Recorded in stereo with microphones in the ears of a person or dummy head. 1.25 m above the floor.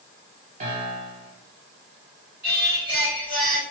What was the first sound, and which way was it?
A piano, 40° right (ahead or behind).